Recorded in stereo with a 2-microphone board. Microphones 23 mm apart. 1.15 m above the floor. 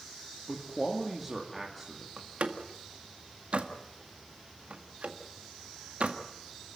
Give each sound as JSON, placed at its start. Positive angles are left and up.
{"t": 0.5, "sound": "a man speaking", "side_deg": 0, "distance_m": 2.5}
{"t": 2.2, "sound": "a door slam", "side_deg": -60, "distance_m": 1.7}